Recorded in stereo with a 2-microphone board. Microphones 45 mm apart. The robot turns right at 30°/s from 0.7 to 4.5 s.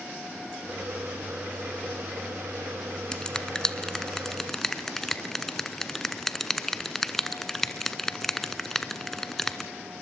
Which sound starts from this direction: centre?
A finger snap, at 3.1 s.